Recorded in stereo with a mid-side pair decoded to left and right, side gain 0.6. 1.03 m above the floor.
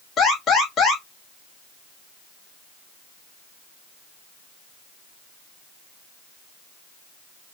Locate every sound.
0.2 s an alarm: 45° left, 2 m